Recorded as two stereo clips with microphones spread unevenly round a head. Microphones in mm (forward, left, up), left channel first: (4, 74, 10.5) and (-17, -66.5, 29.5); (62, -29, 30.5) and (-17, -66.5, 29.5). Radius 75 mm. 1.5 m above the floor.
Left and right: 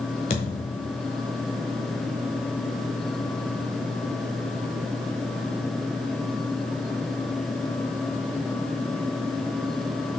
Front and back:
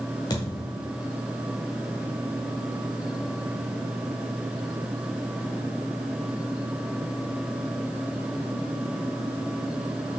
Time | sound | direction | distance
0.3 | a thud | 55° left | 1.5 m